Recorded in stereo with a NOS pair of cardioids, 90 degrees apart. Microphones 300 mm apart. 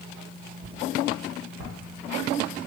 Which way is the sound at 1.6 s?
65° right.